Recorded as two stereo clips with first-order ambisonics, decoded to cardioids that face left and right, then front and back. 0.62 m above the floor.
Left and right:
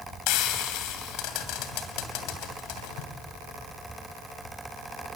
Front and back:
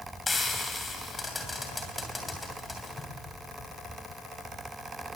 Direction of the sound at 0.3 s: 75° left.